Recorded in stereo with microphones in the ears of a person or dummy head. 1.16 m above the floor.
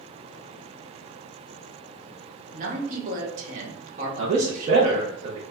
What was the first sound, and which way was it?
A man speaking, 45° right (ahead or behind).